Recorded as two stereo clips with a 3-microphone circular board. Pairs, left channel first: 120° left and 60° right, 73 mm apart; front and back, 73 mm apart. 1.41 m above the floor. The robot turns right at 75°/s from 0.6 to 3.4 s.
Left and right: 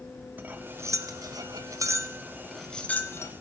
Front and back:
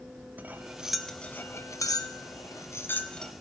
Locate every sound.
0.4 s cutlery clinking: 120° right, 0.8 m; by 3.3 s 85° left, 0.8 m